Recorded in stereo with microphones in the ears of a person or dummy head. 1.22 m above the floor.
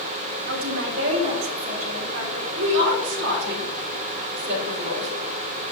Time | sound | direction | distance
0.5 | a woman speaking | 70° right (ahead or behind) | 1.5 m
2.5 | a woman speaking | 65° right (ahead or behind) | 2.5 m